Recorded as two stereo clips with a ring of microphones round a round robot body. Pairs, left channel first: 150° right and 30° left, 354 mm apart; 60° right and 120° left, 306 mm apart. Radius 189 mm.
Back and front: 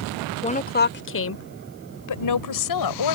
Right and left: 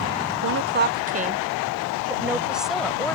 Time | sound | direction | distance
0.4 | a woman speaking | 145° left | ?